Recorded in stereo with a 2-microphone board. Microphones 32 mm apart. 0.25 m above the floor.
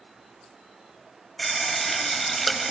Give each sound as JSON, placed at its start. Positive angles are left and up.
{"t": 1.4, "sound": "a running tap", "side_deg": 5, "distance_m": 0.8}